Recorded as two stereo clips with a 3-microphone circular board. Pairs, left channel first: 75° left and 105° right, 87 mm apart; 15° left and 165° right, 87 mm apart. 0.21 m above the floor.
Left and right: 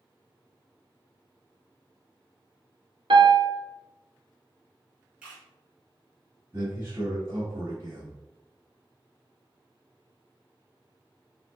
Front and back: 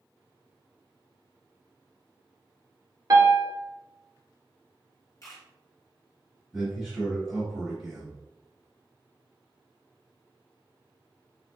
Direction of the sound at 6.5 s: 85° right.